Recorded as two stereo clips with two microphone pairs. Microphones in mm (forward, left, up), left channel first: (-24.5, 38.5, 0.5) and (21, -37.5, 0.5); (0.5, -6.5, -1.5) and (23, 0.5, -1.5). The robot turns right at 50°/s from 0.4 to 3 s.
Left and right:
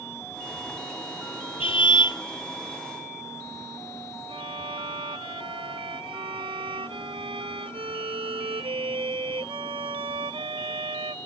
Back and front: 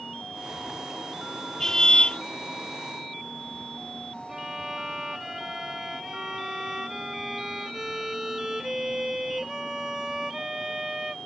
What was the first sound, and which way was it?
A car horn, 125° left.